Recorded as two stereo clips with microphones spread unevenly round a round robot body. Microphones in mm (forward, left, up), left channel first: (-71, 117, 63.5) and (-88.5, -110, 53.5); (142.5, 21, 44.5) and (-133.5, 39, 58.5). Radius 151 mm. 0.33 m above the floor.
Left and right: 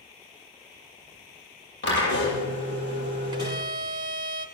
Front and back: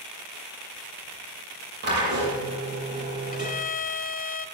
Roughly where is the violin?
Ahead right.